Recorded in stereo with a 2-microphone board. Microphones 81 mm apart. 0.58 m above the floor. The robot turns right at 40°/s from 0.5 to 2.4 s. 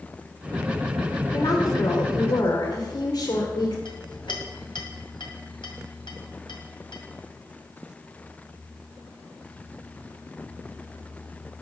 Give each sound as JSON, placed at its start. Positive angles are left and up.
{"t": 1.3, "sound": "a woman speaking", "azimuth_deg": 55, "distance_m": 2.0}
{"t": 3.9, "sound": "a clink", "side_deg": 80, "distance_m": 2.0}